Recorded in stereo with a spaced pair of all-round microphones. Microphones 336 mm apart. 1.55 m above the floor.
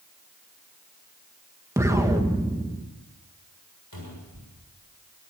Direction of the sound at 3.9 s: 90° left.